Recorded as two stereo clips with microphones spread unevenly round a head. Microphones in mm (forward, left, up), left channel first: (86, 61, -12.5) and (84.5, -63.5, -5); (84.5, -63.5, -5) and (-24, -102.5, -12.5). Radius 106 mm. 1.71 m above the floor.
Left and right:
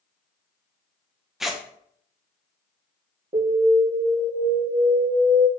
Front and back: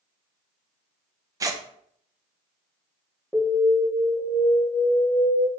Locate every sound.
1.4 s tearing paper: 165° right, 0.7 m
3.3 s an alarm: 60° right, 3 m